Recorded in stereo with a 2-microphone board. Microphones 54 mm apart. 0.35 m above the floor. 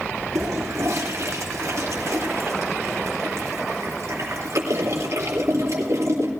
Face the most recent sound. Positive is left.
turn(degrees=-60)  # may be behind; listen again after turning